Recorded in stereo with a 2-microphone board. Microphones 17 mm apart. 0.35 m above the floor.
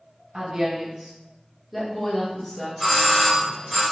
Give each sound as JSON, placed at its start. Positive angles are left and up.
{"t": 0.3, "sound": "a woman speaking", "side_deg": -45, "distance_m": 1.7}
{"t": 2.8, "sound": "a doorbell", "side_deg": 10, "distance_m": 1.9}